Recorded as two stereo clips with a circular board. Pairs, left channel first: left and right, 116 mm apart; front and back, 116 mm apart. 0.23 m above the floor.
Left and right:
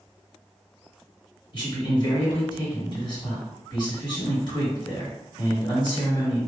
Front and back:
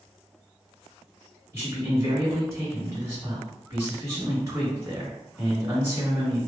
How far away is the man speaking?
About 2.0 m.